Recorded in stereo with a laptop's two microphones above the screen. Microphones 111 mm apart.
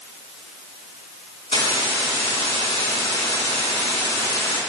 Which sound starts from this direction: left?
A hiss, at 1.5 s.